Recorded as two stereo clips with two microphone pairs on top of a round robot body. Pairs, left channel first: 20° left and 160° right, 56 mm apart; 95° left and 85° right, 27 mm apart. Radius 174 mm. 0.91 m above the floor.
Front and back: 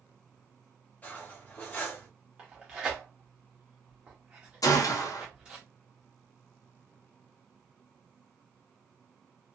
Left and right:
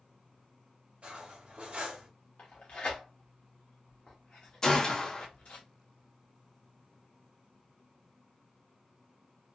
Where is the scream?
I don't hear a scream.